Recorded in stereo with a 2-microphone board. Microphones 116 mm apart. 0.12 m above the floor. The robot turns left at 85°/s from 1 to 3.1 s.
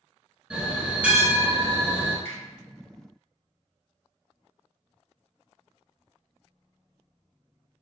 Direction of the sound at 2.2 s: 20° left (ahead or behind).